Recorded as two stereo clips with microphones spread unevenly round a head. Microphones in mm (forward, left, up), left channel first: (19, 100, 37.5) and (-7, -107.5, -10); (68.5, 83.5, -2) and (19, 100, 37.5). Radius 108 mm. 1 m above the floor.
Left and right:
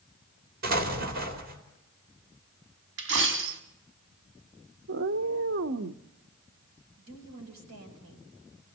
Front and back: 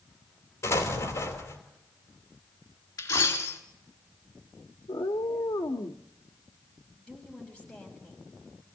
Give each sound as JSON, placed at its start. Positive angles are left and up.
{"t": 0.6, "sound": "an explosion", "azimuth_deg": -55, "distance_m": 3.0}
{"t": 3.0, "sound": "a dropped coin", "azimuth_deg": -65, "distance_m": 1.7}
{"t": 4.9, "sound": "a cat meowing", "azimuth_deg": -65, "distance_m": 0.8}
{"t": 7.0, "sound": "a woman speaking", "azimuth_deg": -100, "distance_m": 5.5}